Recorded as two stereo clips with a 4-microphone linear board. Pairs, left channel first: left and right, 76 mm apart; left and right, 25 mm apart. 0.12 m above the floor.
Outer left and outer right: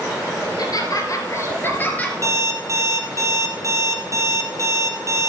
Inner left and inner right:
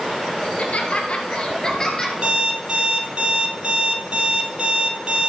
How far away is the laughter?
About 2.5 m.